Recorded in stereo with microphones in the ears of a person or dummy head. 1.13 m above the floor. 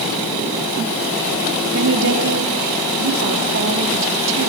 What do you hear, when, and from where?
1.7 s a woman speaking: 65° right (ahead or behind), 3 m